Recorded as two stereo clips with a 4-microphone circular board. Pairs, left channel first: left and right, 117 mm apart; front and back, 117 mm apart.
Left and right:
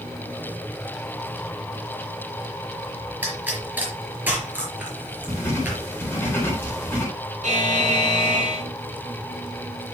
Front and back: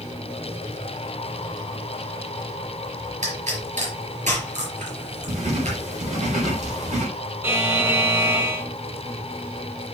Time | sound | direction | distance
3.2 | a pop | 165° right | 4.5 m
5.3 | writing | 160° left | 4 m
7.4 | a buzzer | 110° right | 5.5 m